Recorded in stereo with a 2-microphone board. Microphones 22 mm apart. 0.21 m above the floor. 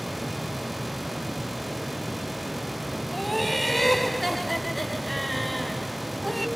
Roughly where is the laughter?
Centre.